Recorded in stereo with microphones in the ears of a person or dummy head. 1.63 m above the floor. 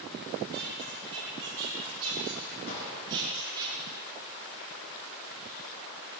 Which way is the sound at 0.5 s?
70° right (ahead or behind).